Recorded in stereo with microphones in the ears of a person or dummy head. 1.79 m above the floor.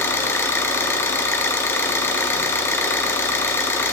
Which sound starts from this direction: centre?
An engine running, at 0.0 s.